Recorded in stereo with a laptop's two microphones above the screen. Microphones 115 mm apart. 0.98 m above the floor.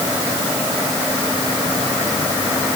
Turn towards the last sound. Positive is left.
No sound to turn to.